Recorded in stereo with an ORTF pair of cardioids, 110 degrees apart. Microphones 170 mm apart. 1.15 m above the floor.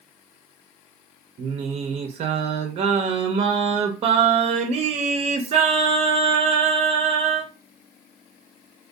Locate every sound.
1.4 s singing: 40° right, 0.5 m